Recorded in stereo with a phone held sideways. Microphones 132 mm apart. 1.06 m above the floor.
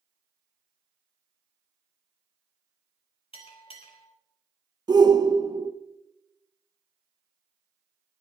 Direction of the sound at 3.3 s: 45° left (ahead or behind).